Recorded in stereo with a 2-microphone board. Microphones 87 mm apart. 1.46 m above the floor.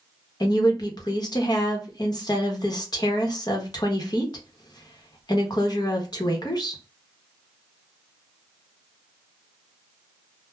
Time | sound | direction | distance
0.4 | a woman speaking | 50° left (ahead or behind) | 0.9 m